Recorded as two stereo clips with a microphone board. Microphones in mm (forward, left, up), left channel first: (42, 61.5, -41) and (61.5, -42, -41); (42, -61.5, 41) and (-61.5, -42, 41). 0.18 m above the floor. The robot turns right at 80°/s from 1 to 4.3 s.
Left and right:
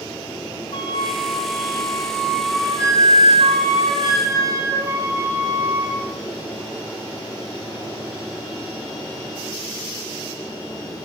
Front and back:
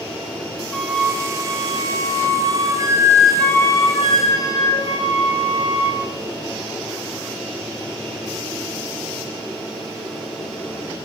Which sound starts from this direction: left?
A flute, at 0.7 s.